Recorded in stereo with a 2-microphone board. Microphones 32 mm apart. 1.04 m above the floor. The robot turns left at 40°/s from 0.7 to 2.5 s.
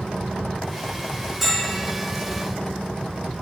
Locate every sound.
1.4 s a bell: centre (ahead or behind), 2 m; by 1.9 s 20° left (ahead or behind), 2 m